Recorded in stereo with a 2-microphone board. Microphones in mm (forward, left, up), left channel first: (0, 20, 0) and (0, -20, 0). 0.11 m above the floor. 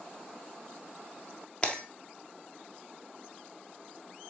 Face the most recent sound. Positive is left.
turn(degrees=20)  # may be behind; listen again after turning